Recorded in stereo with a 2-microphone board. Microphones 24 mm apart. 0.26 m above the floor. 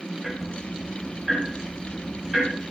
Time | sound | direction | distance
0.2 | ticking | 20° right (ahead or behind) | 7.5 m